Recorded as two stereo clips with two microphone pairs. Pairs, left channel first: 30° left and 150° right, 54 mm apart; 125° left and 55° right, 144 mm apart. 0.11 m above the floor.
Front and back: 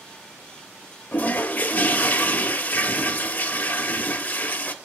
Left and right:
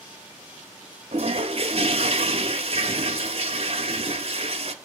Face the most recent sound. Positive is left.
turn(degrees=-15)